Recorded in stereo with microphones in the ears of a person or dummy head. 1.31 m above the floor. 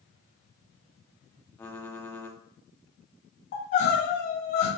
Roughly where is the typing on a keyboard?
Centre.